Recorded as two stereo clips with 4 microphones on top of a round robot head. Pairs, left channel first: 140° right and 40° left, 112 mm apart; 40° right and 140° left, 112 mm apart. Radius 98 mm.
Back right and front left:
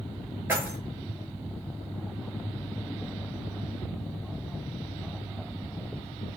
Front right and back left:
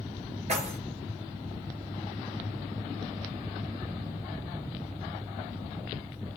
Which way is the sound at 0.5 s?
105° left.